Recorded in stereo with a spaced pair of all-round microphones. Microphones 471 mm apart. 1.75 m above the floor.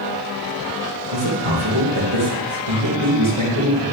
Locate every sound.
1.1 s a man speaking: 85° right, 2.5 m